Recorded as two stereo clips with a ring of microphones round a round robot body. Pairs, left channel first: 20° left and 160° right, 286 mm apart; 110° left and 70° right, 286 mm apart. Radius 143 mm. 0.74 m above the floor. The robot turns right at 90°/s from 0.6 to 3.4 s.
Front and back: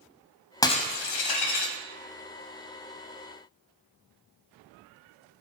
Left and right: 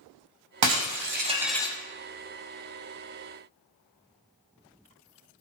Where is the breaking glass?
55° right, 2.0 m; by 1.8 s 45° left, 2.0 m.